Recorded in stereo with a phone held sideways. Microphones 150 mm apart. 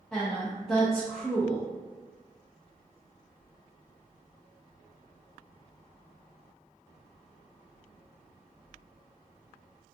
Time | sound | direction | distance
0.1 | a woman speaking | 10° left (ahead or behind) | 0.5 m